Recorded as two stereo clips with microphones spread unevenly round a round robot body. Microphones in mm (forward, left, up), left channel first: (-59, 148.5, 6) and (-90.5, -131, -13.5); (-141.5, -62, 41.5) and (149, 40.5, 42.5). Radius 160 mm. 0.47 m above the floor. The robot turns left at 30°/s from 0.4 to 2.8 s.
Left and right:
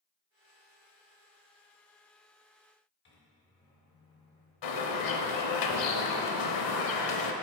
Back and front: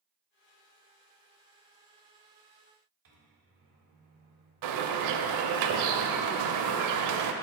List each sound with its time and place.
3.0 s a microwave: 40° left, 1.5 m
4.6 s a bird: 55° left, 0.5 m